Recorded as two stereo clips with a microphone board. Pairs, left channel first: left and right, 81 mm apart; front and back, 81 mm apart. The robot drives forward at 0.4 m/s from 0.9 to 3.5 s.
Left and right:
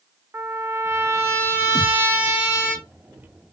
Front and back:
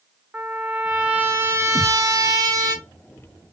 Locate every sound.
0.3 s a trumpet: 110° right, 0.6 m; by 2.8 s 160° right, 1.0 m
1.8 s a thud: 10° left, 2 m